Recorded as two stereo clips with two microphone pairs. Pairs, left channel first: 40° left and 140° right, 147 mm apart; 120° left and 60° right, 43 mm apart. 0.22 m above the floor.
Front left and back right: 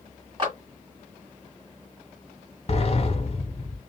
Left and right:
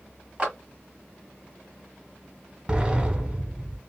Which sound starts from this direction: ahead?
A sliding door, at 2.7 s.